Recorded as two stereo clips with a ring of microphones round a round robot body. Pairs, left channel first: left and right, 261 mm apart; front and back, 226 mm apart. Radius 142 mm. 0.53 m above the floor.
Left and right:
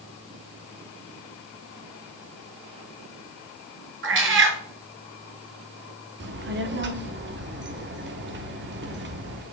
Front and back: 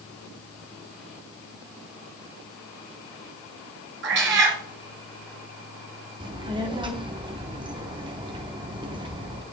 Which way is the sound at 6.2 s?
115° right.